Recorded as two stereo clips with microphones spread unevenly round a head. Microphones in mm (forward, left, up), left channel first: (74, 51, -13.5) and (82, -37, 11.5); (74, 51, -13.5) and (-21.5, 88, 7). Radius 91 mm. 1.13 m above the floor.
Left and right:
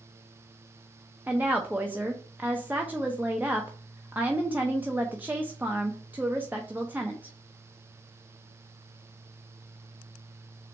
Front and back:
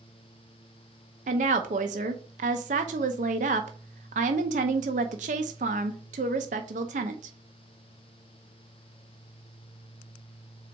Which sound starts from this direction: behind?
A woman speaking, at 1.3 s.